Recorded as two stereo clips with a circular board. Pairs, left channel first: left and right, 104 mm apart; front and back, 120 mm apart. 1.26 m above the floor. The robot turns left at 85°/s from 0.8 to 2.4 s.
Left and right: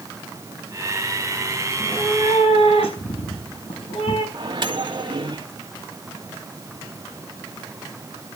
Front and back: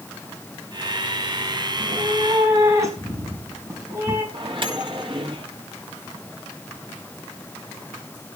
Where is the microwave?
135° right, 2.5 m.